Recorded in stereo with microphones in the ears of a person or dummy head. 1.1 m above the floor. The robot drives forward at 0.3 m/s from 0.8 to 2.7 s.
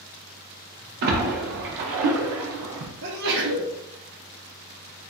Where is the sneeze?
60° right (ahead or behind), 0.9 m.